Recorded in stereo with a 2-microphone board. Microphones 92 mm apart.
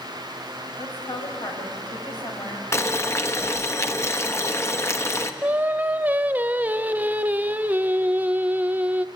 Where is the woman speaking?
55° left (ahead or behind), 6.5 m.